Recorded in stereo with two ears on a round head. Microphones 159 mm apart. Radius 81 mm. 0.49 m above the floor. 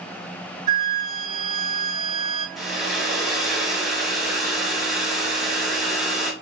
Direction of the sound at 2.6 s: Centre (ahead or behind).